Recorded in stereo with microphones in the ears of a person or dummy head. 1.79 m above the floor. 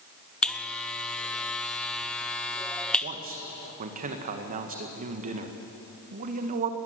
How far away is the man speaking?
About 1.8 m.